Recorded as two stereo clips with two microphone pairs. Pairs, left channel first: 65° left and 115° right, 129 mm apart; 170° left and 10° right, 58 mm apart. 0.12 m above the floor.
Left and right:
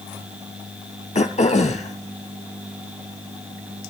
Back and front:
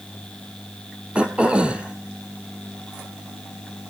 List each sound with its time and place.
1.1 s throat clearing: 60° left, 1.0 m